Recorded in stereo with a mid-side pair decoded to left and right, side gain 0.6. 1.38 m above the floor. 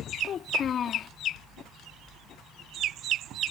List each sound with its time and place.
0.2 s a child speaking: 45° left